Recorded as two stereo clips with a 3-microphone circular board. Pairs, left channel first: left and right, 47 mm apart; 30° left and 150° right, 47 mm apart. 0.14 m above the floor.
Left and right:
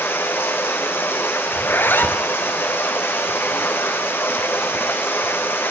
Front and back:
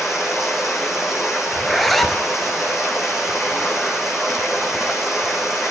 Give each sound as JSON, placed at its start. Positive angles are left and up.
{"t": 0.0, "sound": "running water", "azimuth_deg": 125, "distance_m": 3.0}
{"t": 1.5, "sound": "a zipper", "azimuth_deg": 115, "distance_m": 1.1}